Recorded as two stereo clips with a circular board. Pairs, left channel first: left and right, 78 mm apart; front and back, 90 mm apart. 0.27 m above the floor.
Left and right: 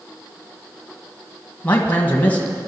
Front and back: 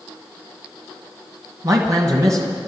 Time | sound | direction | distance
1.6 | a man speaking | 150° left | 1.5 m